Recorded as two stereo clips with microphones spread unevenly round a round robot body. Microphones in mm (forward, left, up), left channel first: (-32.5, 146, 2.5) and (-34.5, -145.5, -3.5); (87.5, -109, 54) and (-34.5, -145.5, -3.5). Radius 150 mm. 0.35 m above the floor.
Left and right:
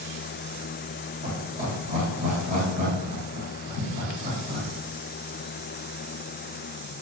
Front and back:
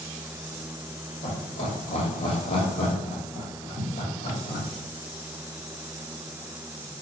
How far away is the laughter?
About 1.2 m.